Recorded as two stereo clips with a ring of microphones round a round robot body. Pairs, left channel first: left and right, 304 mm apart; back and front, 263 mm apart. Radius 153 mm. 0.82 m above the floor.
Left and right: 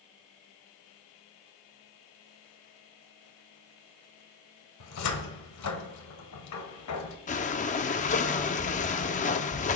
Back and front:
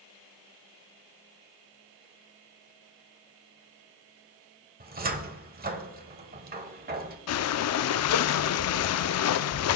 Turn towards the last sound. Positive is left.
turn(degrees=155)